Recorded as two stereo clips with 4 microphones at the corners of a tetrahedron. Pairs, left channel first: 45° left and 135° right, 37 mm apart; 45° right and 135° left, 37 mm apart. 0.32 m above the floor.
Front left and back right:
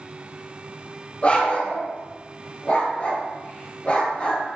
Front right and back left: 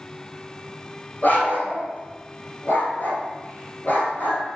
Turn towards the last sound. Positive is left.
turn(degrees=-10)